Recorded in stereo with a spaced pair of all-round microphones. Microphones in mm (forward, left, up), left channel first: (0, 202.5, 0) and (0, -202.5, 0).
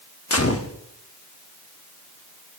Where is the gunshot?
35° left (ahead or behind), 0.8 m.